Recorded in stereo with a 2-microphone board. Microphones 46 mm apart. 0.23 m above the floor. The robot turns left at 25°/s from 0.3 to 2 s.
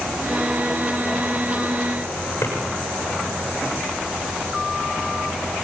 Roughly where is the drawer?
Left.